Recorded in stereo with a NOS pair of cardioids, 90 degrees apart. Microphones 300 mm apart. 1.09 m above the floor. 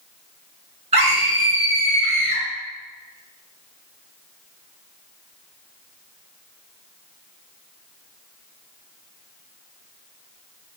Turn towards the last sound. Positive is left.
turn(degrees=-20)